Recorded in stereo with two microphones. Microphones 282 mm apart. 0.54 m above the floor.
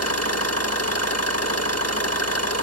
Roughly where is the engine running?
Left.